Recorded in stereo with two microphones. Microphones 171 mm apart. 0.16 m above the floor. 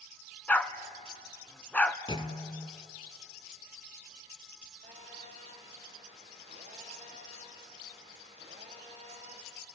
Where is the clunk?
30° left (ahead or behind), 0.9 m.